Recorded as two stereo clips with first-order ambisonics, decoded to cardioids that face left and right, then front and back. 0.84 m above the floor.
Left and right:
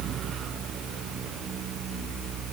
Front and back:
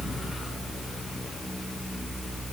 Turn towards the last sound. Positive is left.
No sound to turn to.